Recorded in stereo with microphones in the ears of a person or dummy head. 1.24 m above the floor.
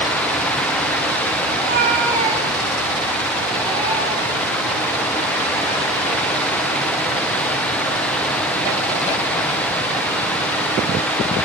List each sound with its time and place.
1.5 s a cat meowing: 55° right (ahead or behind), 3 m; by 4.6 s 15° right (ahead or behind), 5 m